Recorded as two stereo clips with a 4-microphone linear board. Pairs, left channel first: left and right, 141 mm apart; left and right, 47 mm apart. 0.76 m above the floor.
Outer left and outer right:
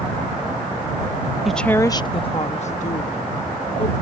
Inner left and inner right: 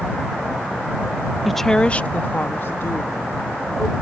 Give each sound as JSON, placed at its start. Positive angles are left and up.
{"t": 1.4, "sound": "a woman speaking", "side_deg": 0}